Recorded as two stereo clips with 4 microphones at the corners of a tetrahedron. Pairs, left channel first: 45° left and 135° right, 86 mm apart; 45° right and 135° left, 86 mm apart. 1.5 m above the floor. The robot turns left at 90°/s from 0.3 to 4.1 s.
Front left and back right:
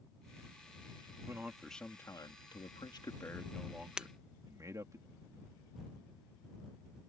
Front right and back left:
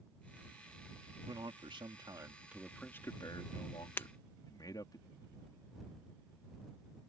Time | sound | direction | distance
1.3 | a man speaking | 170° left | ?
4.0 | breaking glass | 70° right | ?